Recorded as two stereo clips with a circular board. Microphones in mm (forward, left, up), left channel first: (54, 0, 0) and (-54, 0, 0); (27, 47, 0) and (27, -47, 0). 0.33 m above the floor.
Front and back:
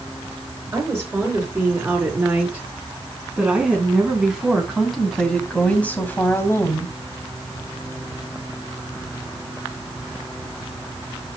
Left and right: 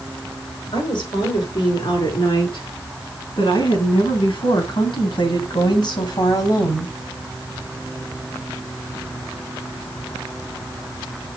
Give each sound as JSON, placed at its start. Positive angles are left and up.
{"t": 0.7, "sound": "a woman speaking", "azimuth_deg": 115, "distance_m": 5.0}